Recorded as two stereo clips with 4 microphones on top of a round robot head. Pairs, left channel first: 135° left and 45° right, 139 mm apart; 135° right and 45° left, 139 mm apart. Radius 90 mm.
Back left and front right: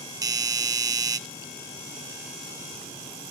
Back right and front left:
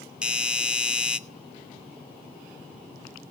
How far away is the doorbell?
About 0.8 m.